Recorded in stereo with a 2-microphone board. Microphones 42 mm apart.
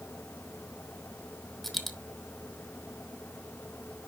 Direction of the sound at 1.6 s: Centre (ahead or behind).